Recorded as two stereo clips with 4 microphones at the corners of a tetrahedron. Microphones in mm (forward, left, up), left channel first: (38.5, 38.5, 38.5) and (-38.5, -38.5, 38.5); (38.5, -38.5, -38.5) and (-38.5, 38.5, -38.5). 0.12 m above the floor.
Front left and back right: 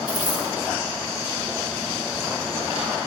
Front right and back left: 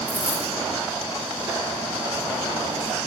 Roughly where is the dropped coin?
Behind right.